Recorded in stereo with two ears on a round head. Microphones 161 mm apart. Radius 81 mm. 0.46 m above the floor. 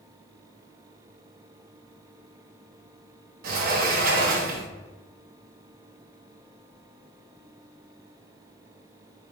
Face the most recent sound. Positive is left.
turn(degrees=-50)  # may be behind; listen again after turning